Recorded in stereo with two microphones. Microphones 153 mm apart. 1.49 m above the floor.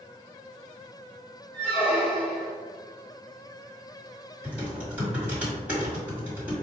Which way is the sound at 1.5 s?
10° left (ahead or behind).